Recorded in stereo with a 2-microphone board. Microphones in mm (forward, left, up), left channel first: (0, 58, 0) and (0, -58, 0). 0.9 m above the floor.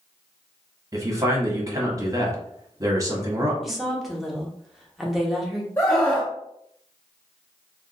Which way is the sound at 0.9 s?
25° right (ahead or behind).